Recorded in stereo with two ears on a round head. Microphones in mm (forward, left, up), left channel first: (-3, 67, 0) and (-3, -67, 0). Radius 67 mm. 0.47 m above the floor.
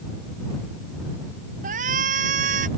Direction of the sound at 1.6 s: 55° right (ahead or behind).